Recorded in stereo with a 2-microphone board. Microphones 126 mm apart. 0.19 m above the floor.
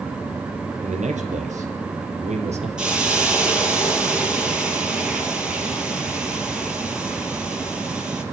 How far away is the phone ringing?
No phone ringing in this recording.